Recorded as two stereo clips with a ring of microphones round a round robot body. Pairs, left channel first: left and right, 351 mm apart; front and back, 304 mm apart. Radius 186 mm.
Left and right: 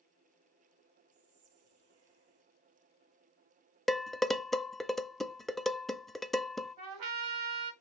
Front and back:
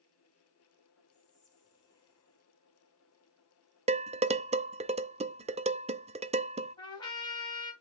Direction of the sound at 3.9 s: Straight behind.